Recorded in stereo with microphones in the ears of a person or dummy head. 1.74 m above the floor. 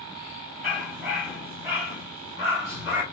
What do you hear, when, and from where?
0.6 s a dog barking: 5° right (ahead or behind), 1.9 m